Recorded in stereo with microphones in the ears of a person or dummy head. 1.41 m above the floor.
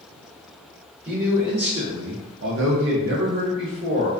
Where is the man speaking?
20° right (ahead or behind), 0.9 m; by 4.1 s 35° right (ahead or behind), 1.1 m.